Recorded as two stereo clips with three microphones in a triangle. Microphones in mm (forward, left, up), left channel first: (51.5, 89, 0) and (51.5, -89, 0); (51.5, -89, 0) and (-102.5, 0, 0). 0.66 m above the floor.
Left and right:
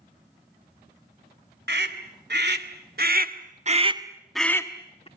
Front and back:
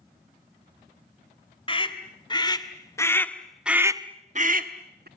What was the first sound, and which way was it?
A scream, 90° right.